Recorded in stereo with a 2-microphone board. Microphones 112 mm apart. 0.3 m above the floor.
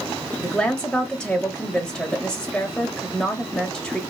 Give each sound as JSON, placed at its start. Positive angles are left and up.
{"t": 0.4, "sound": "a woman speaking", "side_deg": 5, "distance_m": 0.9}